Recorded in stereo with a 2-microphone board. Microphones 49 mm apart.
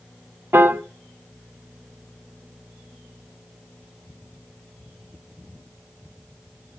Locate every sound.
0.5 s a piano: 50° right (ahead or behind), 0.9 m